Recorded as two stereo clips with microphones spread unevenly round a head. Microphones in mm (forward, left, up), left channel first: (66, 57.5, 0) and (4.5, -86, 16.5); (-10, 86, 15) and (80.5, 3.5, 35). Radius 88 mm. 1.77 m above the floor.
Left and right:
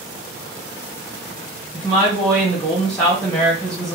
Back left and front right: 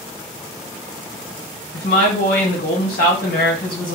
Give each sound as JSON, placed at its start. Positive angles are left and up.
{"t": 1.7, "sound": "a woman speaking", "azimuth_deg": 155, "distance_m": 1.7}